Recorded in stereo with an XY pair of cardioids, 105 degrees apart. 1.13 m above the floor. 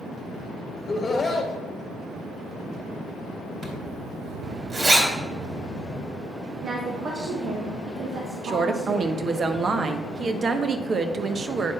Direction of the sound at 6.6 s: 60° right.